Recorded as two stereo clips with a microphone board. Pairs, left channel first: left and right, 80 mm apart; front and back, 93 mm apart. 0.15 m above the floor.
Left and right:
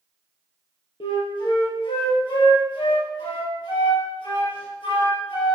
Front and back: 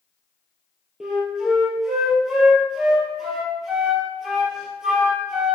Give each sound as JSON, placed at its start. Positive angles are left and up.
{"t": 1.0, "sound": "a flute", "azimuth_deg": 95, "distance_m": 2.5}